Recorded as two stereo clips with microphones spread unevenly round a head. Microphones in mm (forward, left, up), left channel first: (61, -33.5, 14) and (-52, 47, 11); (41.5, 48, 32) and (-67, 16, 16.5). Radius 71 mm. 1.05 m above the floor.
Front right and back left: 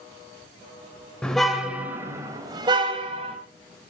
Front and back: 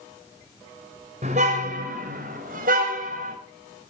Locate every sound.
1.2 s a car horn: 120° right, 3 m; by 3.4 s 160° right, 4 m